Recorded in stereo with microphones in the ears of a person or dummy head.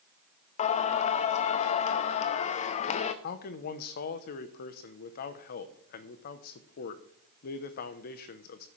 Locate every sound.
0.6 s singing: 40° left (ahead or behind), 0.6 m
3.2 s a man speaking: 50° left (ahead or behind), 0.9 m